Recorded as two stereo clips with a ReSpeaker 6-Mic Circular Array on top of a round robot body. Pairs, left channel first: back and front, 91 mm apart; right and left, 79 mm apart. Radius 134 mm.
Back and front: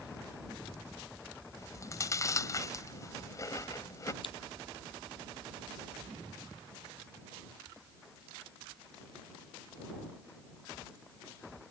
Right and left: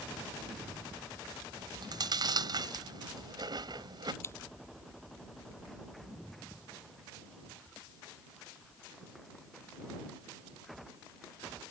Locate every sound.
1.6 s chewing: 125° left
4.2 s scissors: 150° right